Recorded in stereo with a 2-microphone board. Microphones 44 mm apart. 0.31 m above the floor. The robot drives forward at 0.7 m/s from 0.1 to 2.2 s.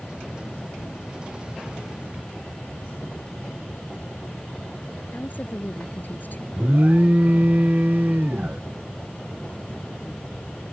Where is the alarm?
40° right (ahead or behind).